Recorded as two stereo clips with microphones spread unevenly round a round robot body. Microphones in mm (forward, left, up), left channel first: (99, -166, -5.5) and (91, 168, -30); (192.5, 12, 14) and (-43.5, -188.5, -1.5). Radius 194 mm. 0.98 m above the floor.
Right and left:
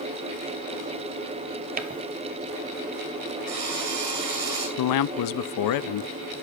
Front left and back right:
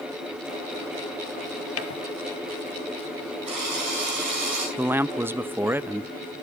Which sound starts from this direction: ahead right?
A man speaking, at 4.8 s.